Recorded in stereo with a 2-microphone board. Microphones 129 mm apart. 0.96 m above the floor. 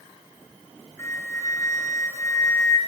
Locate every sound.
1.0 s a flute: 20° left (ahead or behind), 3 m